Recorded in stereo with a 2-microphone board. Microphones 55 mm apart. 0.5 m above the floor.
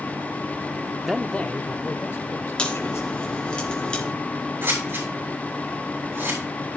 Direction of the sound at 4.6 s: 50° right (ahead or behind).